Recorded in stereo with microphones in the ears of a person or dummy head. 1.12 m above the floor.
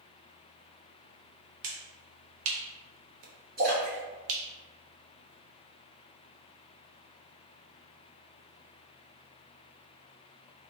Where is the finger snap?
75° right (ahead or behind), 0.6 m.